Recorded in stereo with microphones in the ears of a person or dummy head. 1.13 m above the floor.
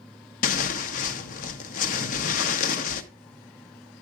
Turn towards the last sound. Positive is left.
turn(degrees=45)  # may be behind; listen again after turning